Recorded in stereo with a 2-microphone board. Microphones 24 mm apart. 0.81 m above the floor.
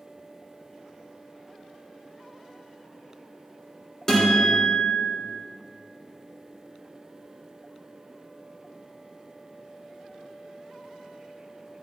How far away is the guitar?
About 3 m.